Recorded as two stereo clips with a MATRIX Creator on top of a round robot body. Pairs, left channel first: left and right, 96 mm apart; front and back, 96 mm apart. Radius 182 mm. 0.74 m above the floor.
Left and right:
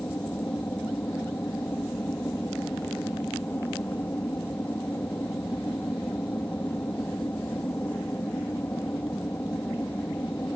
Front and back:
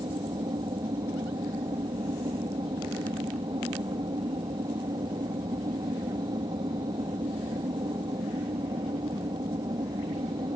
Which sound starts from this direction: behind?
An aircraft, at 0.0 s.